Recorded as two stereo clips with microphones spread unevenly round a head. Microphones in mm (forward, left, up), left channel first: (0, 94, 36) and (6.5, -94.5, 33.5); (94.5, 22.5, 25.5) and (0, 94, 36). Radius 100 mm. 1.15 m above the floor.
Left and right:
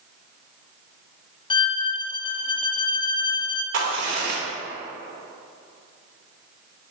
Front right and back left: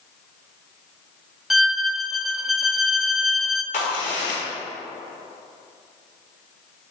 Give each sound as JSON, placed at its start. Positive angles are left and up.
{"t": 1.5, "sound": "a violin", "azimuth_deg": 50, "distance_m": 0.6}
{"t": 3.7, "sound": "a crack", "azimuth_deg": -60, "distance_m": 1.8}